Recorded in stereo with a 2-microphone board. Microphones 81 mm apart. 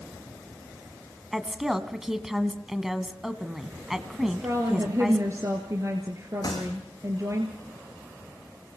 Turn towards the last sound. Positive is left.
turn(degrees=50)  # may be behind; listen again after turning